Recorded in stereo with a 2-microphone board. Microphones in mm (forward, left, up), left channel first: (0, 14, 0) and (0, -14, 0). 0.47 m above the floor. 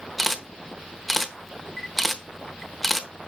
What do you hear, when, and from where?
0.2 s a camera shutter: 5° left (ahead or behind), 0.7 m